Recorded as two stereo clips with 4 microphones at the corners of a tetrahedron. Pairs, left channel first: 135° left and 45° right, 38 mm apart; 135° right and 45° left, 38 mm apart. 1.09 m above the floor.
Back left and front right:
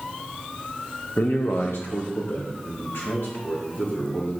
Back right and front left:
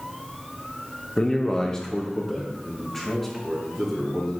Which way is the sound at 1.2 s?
160° left.